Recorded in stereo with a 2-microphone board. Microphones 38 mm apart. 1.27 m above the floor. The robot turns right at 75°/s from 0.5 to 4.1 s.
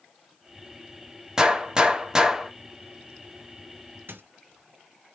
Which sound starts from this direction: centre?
A gunshot, at 1.4 s.